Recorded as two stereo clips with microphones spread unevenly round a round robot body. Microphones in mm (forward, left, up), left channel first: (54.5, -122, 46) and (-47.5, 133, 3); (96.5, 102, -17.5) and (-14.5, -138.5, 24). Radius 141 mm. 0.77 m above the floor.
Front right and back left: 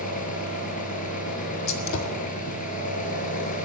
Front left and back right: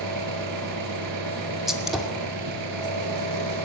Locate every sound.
0.0 s an engine running: 130° right, 4.5 m
1.7 s a gunshot: 20° right, 2.5 m